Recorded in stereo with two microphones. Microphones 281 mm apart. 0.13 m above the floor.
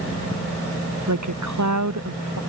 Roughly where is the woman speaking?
Right.